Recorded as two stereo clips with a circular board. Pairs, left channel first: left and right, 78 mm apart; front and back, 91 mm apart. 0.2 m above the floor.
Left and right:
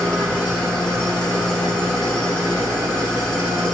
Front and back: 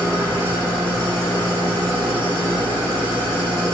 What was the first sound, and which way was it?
An engine running, 170° left.